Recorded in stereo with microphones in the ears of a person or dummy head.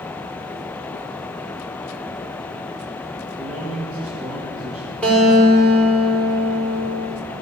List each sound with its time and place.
3.4 s a man speaking: 10° right (ahead or behind), 1.9 m
5.0 s a guitar: 10° left (ahead or behind), 5.5 m